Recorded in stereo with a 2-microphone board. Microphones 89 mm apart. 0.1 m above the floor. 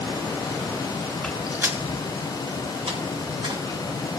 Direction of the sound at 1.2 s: 10° left (ahead or behind).